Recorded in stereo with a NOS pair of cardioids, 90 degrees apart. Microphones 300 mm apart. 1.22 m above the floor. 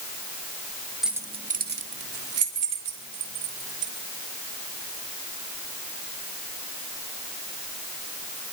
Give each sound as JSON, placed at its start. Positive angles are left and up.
{"t": 1.0, "sound": "keys jangling", "azimuth_deg": 0, "distance_m": 1.1}